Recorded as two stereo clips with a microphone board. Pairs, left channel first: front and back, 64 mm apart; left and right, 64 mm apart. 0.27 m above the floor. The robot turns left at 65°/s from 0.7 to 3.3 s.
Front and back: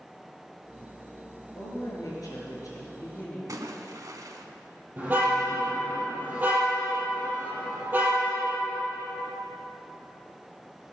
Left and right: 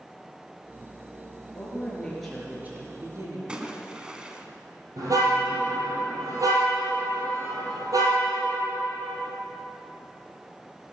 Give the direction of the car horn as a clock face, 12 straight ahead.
4 o'clock.